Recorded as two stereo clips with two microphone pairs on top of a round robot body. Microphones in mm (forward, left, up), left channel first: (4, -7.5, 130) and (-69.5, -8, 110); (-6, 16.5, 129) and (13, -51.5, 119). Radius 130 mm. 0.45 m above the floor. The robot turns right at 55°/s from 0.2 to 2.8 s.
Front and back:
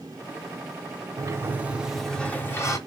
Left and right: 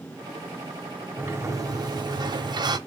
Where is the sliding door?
140° right, 1.0 m; by 2.8 s 50° right, 1.0 m.